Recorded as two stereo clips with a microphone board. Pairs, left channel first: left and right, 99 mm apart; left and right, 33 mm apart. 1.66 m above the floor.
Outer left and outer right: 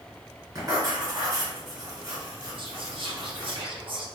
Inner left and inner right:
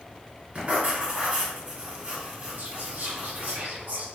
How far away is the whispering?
About 0.8 m.